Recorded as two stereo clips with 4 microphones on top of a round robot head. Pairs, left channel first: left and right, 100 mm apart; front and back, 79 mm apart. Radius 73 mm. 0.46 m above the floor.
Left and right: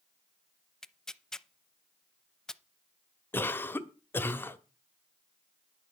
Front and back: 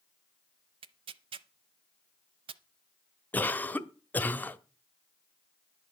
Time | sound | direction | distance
0.8 | tearing paper | 175° left | 0.6 m
3.3 | a cough | 40° left | 1.0 m